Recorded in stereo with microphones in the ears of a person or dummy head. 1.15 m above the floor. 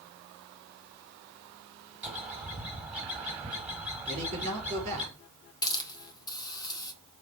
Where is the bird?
5° right (ahead or behind), 1.5 m.